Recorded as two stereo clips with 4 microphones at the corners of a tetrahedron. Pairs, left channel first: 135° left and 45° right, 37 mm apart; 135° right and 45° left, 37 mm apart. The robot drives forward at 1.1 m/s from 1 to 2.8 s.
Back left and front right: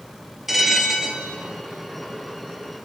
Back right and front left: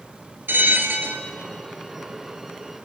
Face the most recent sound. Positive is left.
turn(degrees=120)